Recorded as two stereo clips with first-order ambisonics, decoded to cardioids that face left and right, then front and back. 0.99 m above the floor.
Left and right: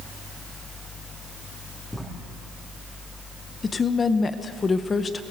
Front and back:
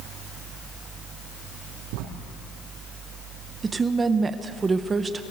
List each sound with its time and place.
1.9 s writing: 175° left, 6 m
3.6 s a woman speaking: 135° left, 0.8 m